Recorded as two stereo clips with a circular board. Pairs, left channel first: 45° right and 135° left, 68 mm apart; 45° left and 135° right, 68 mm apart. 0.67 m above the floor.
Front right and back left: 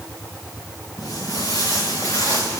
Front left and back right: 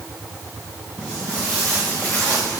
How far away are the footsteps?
About 3.5 m.